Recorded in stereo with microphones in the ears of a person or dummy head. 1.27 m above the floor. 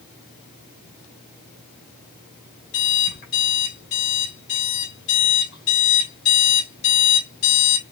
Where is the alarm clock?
65° left (ahead or behind), 2.5 m.